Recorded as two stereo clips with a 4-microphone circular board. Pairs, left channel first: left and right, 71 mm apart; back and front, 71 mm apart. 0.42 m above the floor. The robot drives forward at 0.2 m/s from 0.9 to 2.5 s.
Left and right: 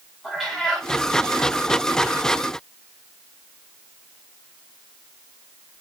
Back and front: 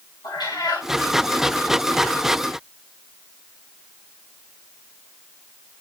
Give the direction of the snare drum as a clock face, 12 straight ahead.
I don't hear a snare drum.